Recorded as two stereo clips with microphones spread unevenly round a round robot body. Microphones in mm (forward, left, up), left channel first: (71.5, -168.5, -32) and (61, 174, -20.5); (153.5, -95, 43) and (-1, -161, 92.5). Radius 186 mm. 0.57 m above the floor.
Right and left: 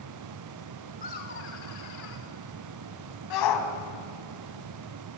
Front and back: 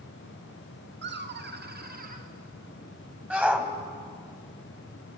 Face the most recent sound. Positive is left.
turn(degrees=-70)